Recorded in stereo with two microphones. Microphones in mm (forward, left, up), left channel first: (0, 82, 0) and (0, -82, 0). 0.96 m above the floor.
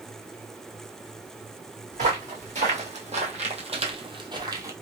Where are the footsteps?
45° right (ahead or behind), 1.9 m; by 4.7 s 20° right (ahead or behind), 1.0 m.